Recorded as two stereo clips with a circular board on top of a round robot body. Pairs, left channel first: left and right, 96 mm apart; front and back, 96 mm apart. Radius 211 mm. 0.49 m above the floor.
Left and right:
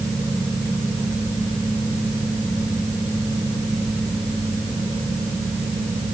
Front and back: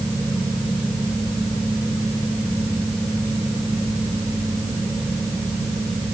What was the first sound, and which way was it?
Only background noise.